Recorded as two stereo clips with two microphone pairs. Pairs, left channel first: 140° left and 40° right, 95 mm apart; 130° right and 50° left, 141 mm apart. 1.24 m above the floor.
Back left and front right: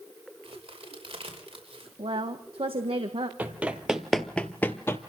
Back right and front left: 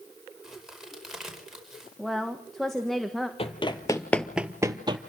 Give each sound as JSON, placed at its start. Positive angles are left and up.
{"t": 0.4, "sound": "a crack", "azimuth_deg": -35, "distance_m": 5.0}
{"t": 2.0, "sound": "a woman speaking", "azimuth_deg": -40, "distance_m": 1.5}
{"t": 3.4, "sound": "running footsteps", "azimuth_deg": -105, "distance_m": 1.8}